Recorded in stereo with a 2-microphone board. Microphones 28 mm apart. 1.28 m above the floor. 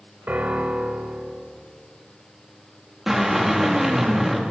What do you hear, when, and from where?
0.3 s a piano: 80° right, 3.5 m
3.1 s a drill: 10° right (ahead or behind), 3 m